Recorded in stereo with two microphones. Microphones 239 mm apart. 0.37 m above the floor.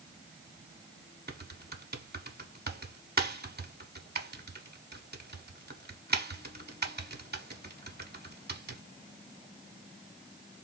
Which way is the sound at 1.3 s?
40° right (ahead or behind).